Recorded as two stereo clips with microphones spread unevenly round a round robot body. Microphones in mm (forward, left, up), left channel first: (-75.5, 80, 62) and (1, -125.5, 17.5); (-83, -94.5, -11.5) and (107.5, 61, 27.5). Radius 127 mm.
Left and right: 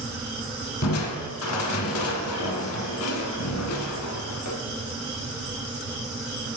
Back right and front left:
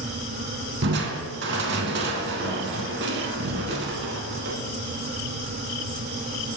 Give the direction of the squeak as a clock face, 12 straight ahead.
I don't hear a squeak.